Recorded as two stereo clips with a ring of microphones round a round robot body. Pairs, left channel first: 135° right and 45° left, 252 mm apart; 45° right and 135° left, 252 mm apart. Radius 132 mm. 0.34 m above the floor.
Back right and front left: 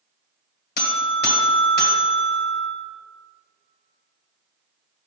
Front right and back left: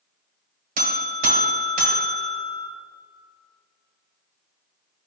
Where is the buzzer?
175° right, 1.5 m.